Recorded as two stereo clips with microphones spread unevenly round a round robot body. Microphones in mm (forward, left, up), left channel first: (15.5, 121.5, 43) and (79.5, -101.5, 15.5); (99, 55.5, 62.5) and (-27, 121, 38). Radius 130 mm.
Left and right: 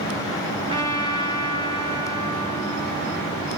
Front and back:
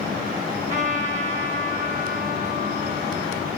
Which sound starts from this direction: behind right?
A trumpet, at 0.7 s.